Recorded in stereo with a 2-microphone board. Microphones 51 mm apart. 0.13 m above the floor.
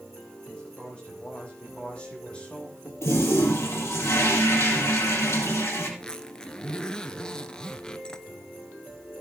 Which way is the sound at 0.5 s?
20° left (ahead or behind).